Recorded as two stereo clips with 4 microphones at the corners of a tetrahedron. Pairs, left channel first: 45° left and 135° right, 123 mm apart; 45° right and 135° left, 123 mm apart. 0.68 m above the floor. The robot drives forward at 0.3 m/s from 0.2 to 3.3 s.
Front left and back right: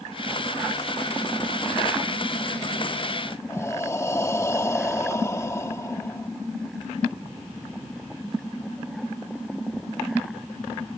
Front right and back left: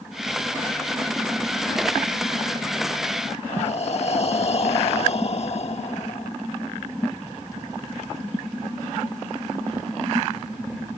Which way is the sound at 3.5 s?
20° right.